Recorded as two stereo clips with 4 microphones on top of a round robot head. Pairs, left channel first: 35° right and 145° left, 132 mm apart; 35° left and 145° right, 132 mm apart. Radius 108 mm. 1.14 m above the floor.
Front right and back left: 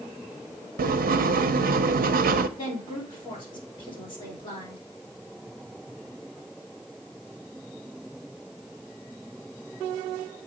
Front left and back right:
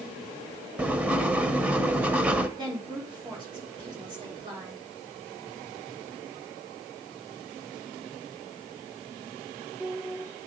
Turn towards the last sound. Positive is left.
turn(degrees=-90)